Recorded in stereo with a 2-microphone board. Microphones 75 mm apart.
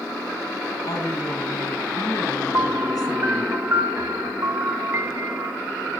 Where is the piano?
35° right (ahead or behind), 3 m.